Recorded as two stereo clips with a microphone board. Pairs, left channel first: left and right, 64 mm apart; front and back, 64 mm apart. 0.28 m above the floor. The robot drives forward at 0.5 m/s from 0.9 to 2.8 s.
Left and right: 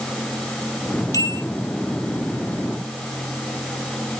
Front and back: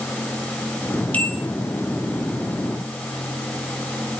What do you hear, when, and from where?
1.1 s a bell: 65° left, 5 m; by 1.4 s 70° left, 4.5 m